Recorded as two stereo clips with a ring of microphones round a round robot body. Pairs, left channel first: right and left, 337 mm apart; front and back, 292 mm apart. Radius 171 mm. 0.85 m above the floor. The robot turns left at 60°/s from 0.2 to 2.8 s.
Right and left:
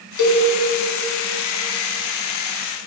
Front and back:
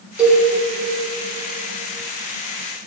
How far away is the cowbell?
About 1.2 m.